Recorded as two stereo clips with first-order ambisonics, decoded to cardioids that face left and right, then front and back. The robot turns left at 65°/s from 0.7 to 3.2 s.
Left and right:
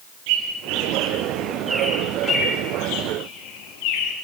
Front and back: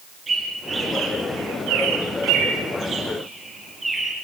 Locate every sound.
0.3 s a bird: 100° right, 4.5 m; by 4.1 s 95° left, 4.5 m